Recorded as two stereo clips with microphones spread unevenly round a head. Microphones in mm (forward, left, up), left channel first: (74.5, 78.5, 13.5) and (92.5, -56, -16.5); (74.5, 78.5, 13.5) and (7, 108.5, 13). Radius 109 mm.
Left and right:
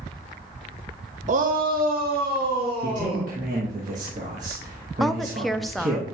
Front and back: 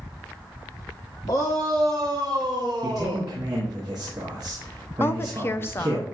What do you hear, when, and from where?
1.3 s a shout: 75° right, 0.6 m; by 3.3 s 140° right, 2.5 m
2.8 s a man speaking: 135° right, 1.0 m
5.0 s a woman speaking: 15° right, 0.5 m